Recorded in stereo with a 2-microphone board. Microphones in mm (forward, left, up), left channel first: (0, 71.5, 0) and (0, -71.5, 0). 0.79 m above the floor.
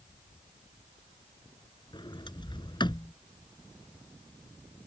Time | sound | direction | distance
1.9 | a sliding door | 30° left (ahead or behind) | ?